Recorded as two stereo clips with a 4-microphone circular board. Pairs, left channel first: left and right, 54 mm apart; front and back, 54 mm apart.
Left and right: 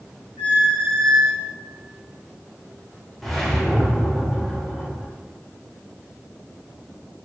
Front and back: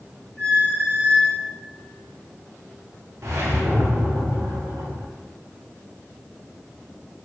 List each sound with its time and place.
0.4 s a squeak: 65° right, 1.9 m
3.2 s a whoosh: 175° left, 0.6 m